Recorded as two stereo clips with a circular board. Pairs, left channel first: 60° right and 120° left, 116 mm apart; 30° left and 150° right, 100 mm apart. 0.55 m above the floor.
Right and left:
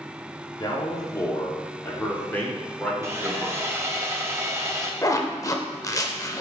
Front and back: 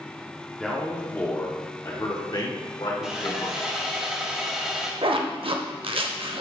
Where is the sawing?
140° left, 1.0 m.